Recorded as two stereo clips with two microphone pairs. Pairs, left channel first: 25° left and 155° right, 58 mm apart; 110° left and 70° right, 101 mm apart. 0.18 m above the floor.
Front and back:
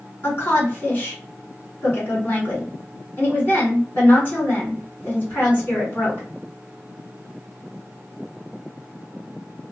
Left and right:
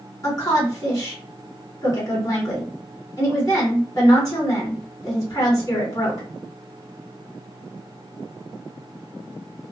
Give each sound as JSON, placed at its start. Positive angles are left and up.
{"t": 0.2, "sound": "a woman speaking", "azimuth_deg": 70, "distance_m": 2.0}